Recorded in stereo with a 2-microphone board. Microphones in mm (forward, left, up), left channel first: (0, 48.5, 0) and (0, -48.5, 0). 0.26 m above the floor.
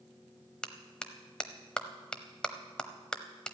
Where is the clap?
10° left (ahead or behind), 0.9 m.